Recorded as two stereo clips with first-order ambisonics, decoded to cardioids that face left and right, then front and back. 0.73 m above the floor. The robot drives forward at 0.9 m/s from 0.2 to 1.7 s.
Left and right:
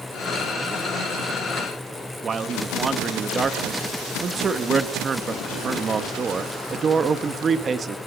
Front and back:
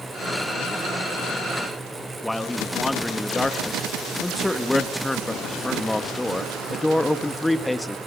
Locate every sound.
2.2 s a man speaking: 80° right, 1.0 m